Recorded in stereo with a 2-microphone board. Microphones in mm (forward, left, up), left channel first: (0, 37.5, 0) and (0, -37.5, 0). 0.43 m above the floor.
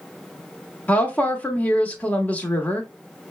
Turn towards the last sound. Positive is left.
turn(degrees=20)  # may be behind; listen again after turning